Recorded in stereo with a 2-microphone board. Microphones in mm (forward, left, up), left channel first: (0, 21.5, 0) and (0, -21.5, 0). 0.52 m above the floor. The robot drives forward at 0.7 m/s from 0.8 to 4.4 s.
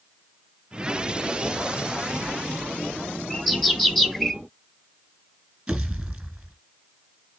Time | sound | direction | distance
3.3 | a bird | 5° left (ahead or behind) | 1.4 m
5.7 | a pop | 15° right (ahead or behind) | 1.9 m